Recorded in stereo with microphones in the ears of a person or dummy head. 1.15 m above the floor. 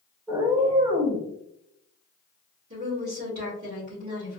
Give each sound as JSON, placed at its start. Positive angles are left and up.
{"t": 0.3, "sound": "a cat meowing", "side_deg": -15, "distance_m": 0.5}
{"t": 2.7, "sound": "a woman speaking", "side_deg": -50, "distance_m": 1.7}